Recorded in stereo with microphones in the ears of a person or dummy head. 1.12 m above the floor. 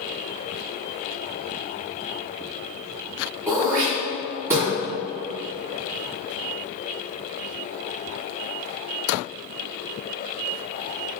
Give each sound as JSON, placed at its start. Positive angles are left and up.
{"t": 3.5, "sound": "throat clearing", "side_deg": -10, "distance_m": 1.8}